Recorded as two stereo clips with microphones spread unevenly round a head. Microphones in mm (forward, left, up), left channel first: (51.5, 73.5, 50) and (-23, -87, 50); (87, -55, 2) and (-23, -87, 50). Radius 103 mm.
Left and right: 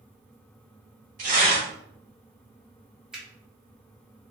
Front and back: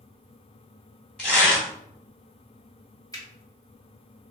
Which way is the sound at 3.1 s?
30° right.